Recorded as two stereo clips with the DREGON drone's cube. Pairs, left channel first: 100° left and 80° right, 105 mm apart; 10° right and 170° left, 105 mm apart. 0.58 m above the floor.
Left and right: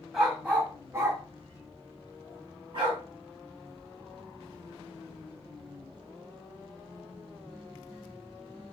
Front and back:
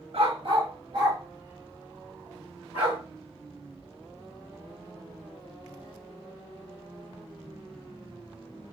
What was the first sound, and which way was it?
A dog barking, 165° right.